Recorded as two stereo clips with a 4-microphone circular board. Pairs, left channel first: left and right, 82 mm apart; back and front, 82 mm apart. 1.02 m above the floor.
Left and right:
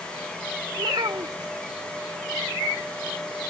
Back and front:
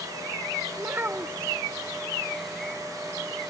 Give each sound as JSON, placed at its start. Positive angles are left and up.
{"t": 0.8, "sound": "a child speaking", "azimuth_deg": -60}